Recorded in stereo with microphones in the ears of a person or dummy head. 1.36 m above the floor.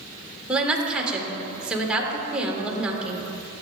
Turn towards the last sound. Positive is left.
turn(degrees=0)  # may be behind; listen again after turning